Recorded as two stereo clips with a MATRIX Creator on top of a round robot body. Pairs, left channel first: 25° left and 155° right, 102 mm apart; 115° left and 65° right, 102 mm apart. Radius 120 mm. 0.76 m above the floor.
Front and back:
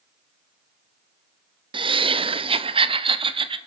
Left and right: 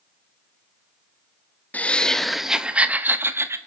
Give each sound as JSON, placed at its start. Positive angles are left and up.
{"t": 1.7, "sound": "laughter", "azimuth_deg": -175, "distance_m": 1.1}